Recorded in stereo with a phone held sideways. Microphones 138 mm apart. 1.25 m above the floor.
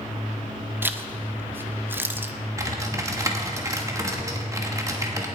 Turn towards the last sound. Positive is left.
turn(degrees=-20)  # may be behind; listen again after turning